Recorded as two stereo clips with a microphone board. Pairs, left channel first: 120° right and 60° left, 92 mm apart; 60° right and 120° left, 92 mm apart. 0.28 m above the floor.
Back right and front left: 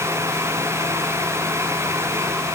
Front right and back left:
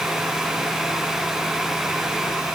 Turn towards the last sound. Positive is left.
No sound to turn to.